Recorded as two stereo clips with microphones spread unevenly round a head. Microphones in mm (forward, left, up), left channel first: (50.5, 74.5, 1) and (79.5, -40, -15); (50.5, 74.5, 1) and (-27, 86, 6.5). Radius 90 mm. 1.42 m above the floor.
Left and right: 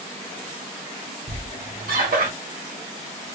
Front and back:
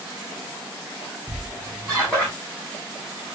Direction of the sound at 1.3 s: 100° right.